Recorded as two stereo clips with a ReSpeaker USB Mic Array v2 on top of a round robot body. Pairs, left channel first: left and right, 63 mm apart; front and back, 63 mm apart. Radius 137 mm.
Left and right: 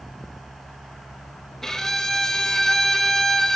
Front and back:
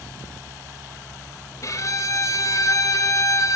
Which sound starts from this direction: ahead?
A violin, at 1.6 s.